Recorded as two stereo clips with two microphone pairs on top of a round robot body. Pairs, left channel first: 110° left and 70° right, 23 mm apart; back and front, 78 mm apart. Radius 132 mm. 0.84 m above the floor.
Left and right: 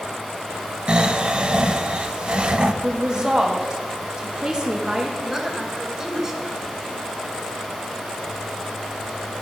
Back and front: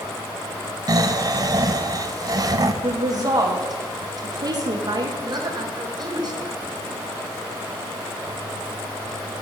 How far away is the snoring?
About 0.7 m.